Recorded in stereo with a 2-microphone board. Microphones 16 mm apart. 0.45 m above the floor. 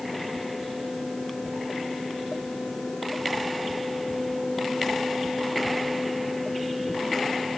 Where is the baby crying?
No baby crying in this recording.